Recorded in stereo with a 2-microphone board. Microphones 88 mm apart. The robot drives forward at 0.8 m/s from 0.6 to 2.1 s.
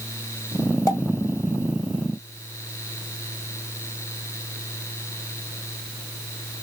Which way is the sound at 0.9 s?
35° left (ahead or behind).